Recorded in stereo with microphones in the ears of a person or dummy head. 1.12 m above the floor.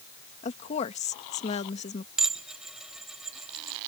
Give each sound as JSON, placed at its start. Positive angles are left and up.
{"t": 0.4, "sound": "a woman speaking", "side_deg": 35}
{"t": 2.2, "sound": "dishes clattering", "side_deg": -5}